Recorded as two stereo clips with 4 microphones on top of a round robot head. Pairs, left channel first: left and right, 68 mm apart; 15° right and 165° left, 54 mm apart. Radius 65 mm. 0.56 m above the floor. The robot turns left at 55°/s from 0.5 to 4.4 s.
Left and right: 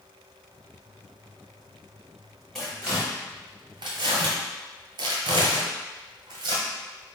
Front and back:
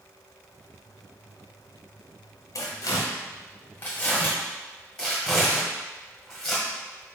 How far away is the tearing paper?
About 0.9 m.